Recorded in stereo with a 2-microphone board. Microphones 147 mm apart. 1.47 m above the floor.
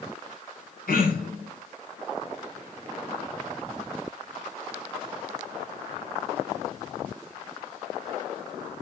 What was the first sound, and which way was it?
Throat clearing, 85° left.